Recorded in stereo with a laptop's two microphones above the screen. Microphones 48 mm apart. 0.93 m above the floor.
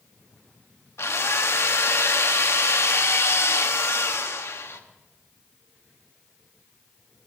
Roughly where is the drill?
Left.